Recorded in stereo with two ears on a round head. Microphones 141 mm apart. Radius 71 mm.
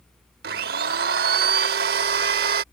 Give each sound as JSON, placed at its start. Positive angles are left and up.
{"t": 0.4, "sound": "a blender", "side_deg": -65}